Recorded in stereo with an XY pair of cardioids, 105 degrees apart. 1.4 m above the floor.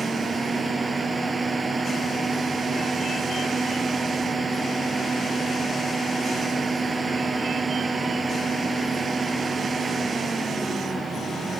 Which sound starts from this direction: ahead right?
A fan, at 0.0 s.